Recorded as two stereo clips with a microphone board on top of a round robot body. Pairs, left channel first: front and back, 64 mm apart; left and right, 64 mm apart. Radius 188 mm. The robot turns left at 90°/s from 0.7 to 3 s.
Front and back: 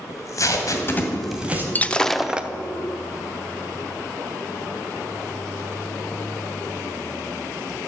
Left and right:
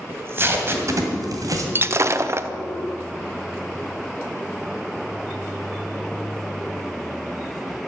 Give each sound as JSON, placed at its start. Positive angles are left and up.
{"t": 0.1, "sound": "tape being pulled", "azimuth_deg": -40, "distance_m": 2.0}
{"t": 1.8, "sound": "breaking glass", "azimuth_deg": -55, "distance_m": 0.9}